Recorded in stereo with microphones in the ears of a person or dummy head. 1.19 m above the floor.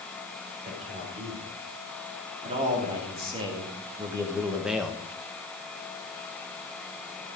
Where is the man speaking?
40° right (ahead or behind), 4.5 m; by 5.0 s 15° left (ahead or behind), 0.9 m.